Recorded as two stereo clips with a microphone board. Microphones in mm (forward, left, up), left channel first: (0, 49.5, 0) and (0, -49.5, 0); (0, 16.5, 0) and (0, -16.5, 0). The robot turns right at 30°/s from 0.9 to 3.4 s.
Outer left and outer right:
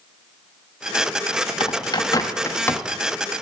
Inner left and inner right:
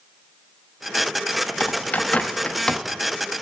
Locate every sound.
1.6 s a bird: 55° left (ahead or behind), 0.8 m; by 2.8 s 20° left (ahead or behind), 0.8 m